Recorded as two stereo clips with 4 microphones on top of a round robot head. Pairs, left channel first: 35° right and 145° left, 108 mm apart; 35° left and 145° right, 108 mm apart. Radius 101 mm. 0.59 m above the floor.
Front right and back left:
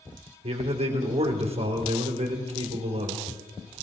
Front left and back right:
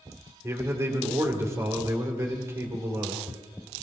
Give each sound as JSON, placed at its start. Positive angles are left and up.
{"t": 0.4, "sound": "a man speaking", "azimuth_deg": 150, "distance_m": 2.5}